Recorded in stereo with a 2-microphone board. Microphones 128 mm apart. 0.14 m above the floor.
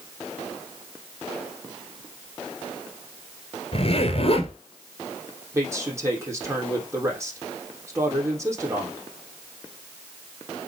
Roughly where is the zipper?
Left.